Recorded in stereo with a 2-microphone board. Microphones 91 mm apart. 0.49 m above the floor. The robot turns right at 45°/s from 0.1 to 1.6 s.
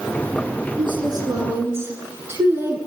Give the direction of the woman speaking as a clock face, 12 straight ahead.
2 o'clock.